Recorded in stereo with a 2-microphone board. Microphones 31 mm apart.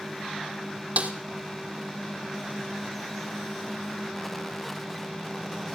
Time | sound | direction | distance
1.0 | a snare drum | 55° right (ahead or behind) | 1.6 m